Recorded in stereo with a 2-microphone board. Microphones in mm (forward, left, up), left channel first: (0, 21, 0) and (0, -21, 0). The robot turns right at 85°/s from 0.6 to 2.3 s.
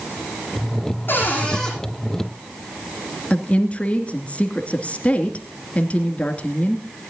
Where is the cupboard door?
125° left, 8.5 m; by 1.7 s straight behind, 8.5 m.